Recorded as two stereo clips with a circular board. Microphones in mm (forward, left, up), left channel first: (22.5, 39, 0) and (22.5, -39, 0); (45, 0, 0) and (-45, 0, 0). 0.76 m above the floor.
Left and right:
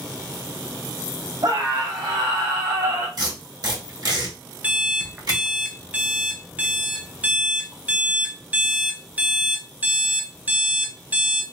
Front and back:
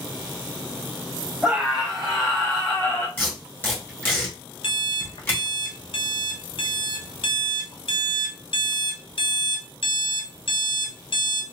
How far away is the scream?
About 1.9 m.